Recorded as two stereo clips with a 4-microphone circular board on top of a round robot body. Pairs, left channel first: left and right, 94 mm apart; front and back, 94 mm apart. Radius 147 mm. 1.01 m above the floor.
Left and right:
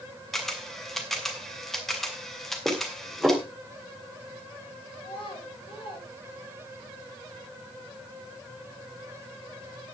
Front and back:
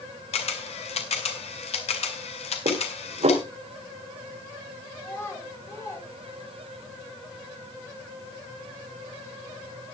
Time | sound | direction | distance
0.3 | a camera shutter | straight ahead | 2 m
2.6 | dishes clattering | 175° right | 4 m
5.0 | a child speaking | 65° left | 5 m